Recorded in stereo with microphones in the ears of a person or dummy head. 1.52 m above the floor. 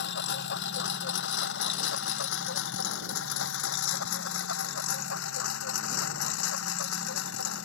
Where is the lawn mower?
60° left (ahead or behind); by 7.7 s 80° left.